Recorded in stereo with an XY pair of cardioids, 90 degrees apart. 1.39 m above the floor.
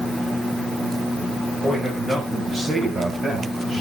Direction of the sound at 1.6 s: 30° right.